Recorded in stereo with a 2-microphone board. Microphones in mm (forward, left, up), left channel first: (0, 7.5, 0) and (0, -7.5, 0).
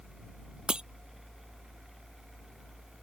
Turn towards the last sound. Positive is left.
turn(degrees=-70)  # may be behind; listen again after turning